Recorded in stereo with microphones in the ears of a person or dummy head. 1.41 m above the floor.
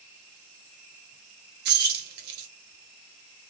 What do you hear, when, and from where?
1.6 s keys jangling: 55° right (ahead or behind), 1.1 m